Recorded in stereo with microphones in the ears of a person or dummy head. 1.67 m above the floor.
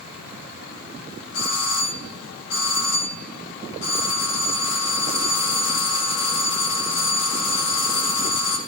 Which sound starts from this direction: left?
A doorbell, at 1.3 s.